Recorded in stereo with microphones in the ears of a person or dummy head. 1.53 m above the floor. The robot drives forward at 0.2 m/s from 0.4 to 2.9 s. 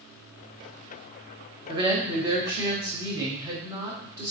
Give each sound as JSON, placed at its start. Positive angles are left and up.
{"t": 1.7, "sound": "a woman speaking", "side_deg": -25, "distance_m": 0.9}